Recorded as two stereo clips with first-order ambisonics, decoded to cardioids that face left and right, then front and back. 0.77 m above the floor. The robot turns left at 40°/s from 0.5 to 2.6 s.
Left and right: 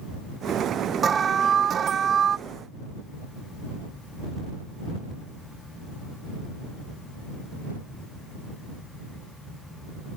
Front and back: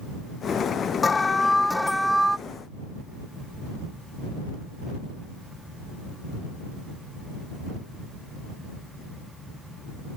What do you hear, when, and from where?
1.0 s an alarm: 55° right; by 2.4 s 110° right